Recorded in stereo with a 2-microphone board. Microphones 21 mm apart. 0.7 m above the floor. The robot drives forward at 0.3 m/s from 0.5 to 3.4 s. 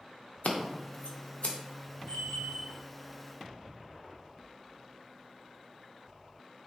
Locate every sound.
0.4 s scissors: 85° left, 0.6 m; by 1.6 s 60° left (ahead or behind), 0.6 m
2.1 s a bell: 65° left (ahead or behind), 0.9 m; by 2.8 s 55° left (ahead or behind), 1.0 m